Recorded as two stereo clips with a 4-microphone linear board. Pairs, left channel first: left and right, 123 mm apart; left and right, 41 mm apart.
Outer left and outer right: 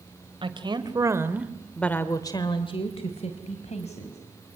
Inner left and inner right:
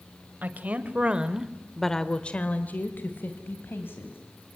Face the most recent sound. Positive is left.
turn(degrees=65)  # may be behind; listen again after turning